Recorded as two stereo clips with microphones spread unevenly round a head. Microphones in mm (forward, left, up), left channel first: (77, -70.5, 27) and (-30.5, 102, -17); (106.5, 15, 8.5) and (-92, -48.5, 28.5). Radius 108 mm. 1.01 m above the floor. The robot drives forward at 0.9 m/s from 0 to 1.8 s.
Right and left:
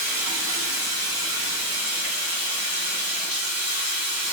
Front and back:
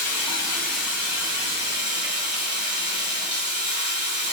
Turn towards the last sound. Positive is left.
turn(degrees=140)